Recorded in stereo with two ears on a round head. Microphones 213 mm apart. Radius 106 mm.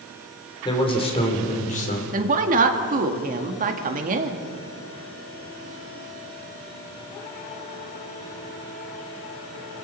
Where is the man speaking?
20° left (ahead or behind), 3.5 m; by 2.0 s 35° left (ahead or behind), 3.5 m.